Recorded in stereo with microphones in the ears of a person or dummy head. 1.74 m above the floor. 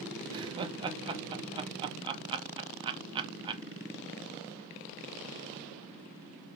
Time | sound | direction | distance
0.3 | laughter | 30° right (ahead or behind) | 0.7 m